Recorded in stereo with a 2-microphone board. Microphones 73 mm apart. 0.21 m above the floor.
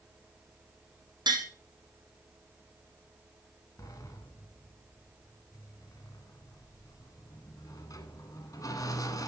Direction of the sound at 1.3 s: 80° right.